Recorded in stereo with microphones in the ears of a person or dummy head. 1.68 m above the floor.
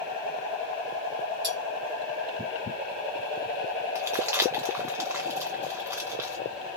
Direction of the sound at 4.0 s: 10° right (ahead or behind).